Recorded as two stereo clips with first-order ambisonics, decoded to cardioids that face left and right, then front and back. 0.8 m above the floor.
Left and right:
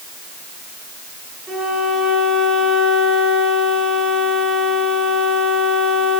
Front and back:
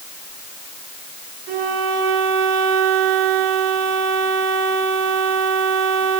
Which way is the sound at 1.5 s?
170° right.